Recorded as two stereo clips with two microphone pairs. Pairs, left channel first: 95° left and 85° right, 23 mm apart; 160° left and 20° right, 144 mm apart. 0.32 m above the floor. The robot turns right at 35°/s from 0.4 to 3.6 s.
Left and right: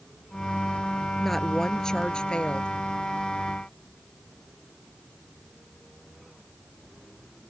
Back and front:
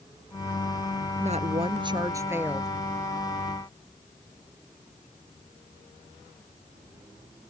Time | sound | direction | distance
1.2 | a woman speaking | 10° left | ?